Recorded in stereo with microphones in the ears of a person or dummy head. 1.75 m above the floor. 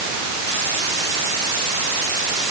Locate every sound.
Only background noise.